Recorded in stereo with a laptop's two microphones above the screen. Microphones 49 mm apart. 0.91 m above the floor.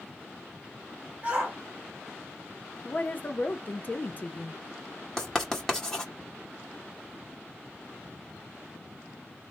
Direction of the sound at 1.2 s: 20° right (ahead or behind).